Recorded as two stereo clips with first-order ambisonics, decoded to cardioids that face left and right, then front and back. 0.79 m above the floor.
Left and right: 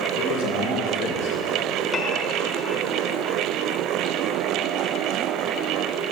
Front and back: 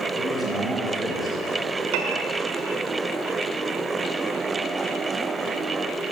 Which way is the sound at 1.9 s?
165° left.